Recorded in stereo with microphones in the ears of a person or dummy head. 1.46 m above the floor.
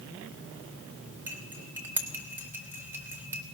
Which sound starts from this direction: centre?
Cutlery clinking, at 1.3 s.